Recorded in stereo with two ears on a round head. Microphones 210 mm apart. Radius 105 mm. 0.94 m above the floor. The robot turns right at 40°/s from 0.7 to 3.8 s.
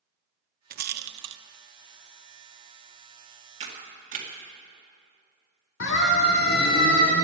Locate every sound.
0.7 s a rattle: 35° right (ahead or behind), 0.5 m; by 1.4 s 50° right (ahead or behind), 0.5 m
3.6 s a camera shutter: 25° right (ahead or behind), 2 m; by 4.3 s 35° right (ahead or behind), 2 m
5.8 s a siren: 55° left (ahead or behind), 2 m; by 7.2 s 35° left (ahead or behind), 2.5 m